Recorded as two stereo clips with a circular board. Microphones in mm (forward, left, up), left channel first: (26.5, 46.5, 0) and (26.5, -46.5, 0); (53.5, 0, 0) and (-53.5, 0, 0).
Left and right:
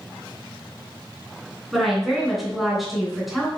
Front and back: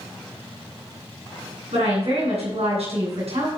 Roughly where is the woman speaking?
Behind.